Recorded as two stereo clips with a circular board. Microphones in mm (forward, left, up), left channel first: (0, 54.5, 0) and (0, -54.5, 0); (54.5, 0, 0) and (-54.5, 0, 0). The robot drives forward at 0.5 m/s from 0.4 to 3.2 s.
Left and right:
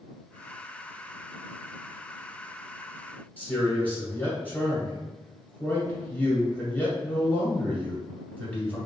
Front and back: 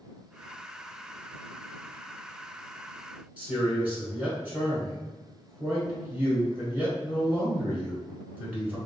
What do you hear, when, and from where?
3.4 s a man speaking: 130° left, 1.2 m